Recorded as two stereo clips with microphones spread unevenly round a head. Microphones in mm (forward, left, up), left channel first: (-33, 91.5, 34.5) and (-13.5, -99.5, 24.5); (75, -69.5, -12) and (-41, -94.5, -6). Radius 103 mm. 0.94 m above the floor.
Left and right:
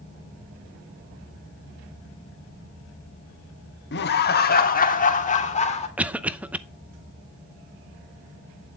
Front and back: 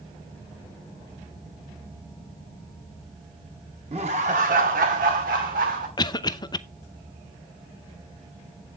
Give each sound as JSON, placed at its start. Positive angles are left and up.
{"t": 3.9, "sound": "laughter", "azimuth_deg": 130, "distance_m": 1.6}
{"t": 6.0, "sound": "a cough", "azimuth_deg": -10, "distance_m": 0.7}